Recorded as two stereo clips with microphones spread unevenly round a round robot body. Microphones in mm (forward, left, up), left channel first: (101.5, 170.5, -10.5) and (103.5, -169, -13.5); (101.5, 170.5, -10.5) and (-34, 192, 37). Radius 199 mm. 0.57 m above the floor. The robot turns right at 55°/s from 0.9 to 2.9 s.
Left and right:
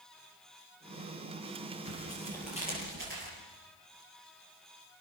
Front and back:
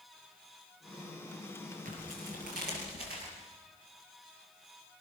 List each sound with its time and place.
1.9 s tearing paper: 145° left, 7 m; by 3.3 s 155° right, 7 m